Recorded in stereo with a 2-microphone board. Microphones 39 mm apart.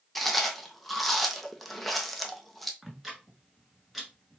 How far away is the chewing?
About 0.8 m.